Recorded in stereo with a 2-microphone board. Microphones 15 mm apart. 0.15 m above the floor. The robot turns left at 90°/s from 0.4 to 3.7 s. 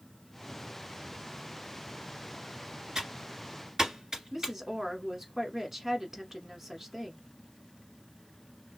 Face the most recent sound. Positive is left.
turn(degrees=-25)  # may be behind; listen again after turning